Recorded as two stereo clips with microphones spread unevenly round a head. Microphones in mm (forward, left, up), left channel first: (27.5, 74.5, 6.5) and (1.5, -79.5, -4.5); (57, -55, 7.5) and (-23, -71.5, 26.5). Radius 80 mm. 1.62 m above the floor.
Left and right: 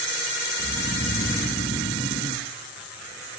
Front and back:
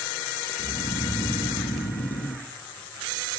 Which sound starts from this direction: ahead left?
Snoring, at 0.6 s.